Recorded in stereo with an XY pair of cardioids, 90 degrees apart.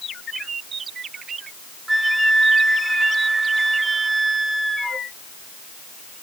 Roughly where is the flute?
Ahead.